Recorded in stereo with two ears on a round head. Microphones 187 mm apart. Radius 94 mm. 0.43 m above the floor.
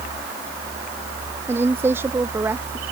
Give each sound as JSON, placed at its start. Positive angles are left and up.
{"t": 1.5, "sound": "a woman speaking", "side_deg": -15}